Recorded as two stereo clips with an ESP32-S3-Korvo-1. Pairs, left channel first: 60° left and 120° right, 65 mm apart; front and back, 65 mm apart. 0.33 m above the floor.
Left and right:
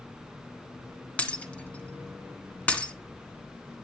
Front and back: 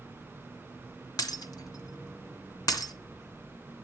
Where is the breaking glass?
10° right, 2 m.